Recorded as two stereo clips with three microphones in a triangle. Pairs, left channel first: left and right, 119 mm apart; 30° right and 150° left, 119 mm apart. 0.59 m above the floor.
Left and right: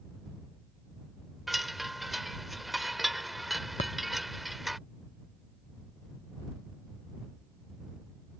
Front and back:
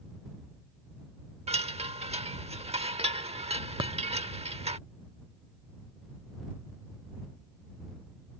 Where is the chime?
Straight behind.